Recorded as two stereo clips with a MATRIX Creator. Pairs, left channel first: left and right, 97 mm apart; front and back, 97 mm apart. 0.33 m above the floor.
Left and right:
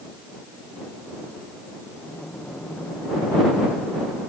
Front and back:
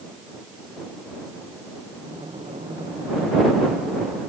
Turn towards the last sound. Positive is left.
turn(degrees=165)